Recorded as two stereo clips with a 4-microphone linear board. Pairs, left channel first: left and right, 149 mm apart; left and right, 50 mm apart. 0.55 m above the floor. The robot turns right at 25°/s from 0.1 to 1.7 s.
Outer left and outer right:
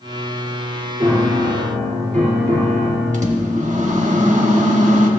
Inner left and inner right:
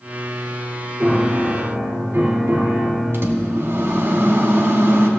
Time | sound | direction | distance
1.0 | a piano | 45° right (ahead or behind) | 2 m
3.1 | a microwave | 55° right (ahead or behind) | 1.0 m